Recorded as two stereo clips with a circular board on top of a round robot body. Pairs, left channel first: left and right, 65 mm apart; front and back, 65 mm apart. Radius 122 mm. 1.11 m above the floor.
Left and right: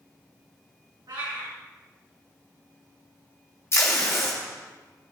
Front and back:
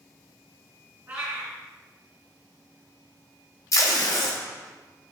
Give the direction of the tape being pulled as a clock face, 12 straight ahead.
11 o'clock.